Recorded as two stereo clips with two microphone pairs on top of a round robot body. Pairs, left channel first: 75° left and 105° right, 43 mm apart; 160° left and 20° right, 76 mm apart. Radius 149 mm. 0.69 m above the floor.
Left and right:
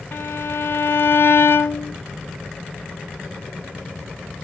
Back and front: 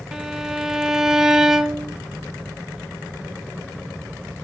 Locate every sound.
0.1 s a violin: 65° left, 0.9 m